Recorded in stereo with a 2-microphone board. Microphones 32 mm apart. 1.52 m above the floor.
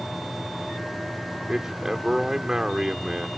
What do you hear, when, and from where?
1.5 s a man speaking: 15° right (ahead or behind)